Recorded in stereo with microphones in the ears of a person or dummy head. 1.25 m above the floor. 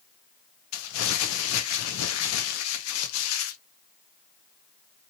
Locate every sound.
0.7 s crumpling: 85° left, 0.6 m